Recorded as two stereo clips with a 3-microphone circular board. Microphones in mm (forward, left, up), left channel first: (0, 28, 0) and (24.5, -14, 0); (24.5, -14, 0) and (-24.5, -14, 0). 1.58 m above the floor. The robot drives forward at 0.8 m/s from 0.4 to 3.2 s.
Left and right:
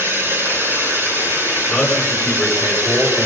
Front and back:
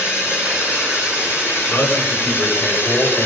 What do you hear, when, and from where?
0.0 s running water: 30° right, 8 m; by 3.3 s 40° right, 6 m
1.7 s a man speaking: 35° left, 8 m; by 3.3 s 40° left, 7 m